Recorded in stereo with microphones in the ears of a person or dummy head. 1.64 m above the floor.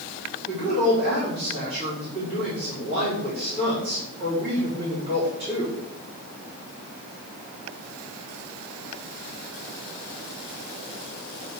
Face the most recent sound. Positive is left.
turn(degrees=-35)  # may be behind; listen again after turning